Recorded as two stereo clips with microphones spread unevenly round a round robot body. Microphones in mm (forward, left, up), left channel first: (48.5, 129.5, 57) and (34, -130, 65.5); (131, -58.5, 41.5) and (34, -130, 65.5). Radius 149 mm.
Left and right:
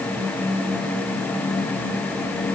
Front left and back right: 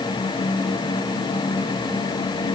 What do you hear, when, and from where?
Only background noise.